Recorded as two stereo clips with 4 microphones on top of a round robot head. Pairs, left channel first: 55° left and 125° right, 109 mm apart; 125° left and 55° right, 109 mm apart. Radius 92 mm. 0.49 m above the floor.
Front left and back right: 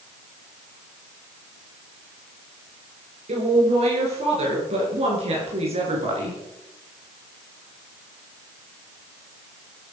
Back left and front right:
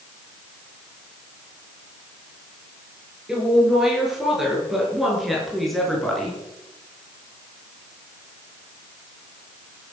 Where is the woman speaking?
140° right, 8 m; by 6.4 s 150° right, 6 m.